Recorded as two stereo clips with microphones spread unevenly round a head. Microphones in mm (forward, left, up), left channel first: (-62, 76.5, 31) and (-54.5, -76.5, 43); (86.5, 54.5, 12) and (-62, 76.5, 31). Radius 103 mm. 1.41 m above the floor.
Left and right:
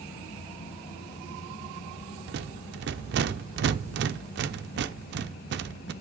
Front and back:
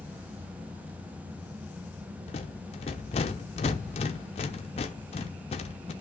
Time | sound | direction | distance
2.3 | a rattle | 70° right | 0.7 m